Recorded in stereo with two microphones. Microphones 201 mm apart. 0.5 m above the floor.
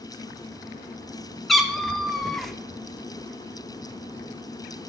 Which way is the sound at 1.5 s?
Centre (ahead or behind).